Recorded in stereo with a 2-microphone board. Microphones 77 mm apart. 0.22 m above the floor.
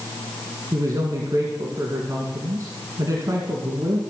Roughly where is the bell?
No bell in this recording.